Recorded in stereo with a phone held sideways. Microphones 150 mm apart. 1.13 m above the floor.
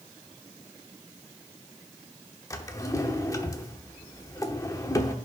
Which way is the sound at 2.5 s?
20° left (ahead or behind).